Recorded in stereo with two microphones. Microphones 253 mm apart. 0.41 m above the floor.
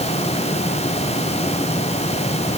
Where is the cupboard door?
I don't hear a cupboard door.